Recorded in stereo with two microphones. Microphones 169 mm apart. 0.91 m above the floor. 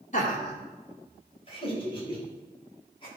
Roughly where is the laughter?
Left.